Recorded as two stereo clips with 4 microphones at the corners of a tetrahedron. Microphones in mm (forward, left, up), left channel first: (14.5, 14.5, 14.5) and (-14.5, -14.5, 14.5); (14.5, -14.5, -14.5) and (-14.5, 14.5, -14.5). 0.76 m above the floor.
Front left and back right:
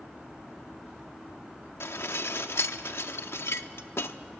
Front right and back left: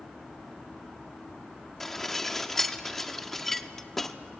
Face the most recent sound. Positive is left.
turn(degrees=35)